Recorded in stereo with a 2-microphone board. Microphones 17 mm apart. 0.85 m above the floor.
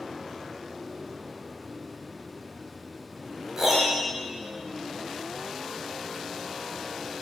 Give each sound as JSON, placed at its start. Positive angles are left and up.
{"t": 3.6, "sound": "a piano", "side_deg": -20, "distance_m": 3.5}